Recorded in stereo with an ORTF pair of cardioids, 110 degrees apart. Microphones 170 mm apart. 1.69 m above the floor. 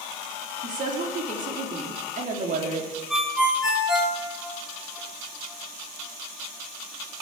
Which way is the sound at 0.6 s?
45° right.